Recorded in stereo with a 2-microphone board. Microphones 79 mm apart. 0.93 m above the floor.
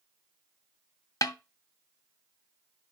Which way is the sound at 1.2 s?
45° left (ahead or behind).